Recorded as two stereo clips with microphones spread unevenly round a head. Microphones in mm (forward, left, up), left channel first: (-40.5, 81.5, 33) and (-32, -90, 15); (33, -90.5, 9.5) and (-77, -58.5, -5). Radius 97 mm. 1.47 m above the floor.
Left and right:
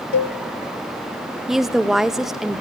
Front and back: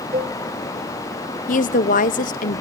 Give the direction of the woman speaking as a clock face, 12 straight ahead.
12 o'clock.